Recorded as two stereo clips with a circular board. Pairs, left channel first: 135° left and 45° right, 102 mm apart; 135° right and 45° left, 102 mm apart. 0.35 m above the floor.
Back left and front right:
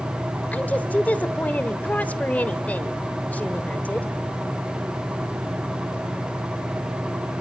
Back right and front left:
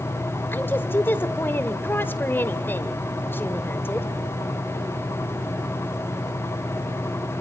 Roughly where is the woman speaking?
Behind.